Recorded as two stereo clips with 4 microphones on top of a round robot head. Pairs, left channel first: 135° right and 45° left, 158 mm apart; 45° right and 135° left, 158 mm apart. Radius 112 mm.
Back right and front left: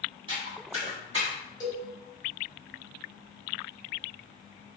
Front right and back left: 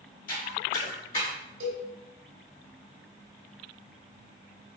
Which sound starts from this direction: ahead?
Footsteps, at 0.3 s.